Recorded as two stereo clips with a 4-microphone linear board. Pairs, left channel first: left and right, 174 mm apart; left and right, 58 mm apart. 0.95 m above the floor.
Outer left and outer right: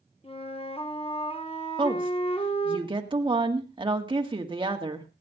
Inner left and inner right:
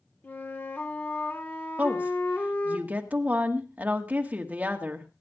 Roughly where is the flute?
Left.